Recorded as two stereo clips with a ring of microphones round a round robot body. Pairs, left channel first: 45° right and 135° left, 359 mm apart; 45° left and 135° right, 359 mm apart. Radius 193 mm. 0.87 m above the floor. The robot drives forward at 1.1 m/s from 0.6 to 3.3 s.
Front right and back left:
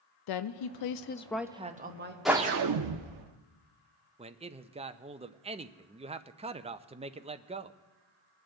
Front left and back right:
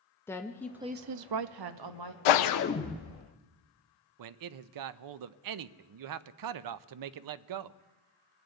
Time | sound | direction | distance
0.3 | a woman speaking | 40° right | 0.7 m
2.2 | a whoosh | 45° left | 0.6 m
4.2 | a man speaking | 155° right | 0.5 m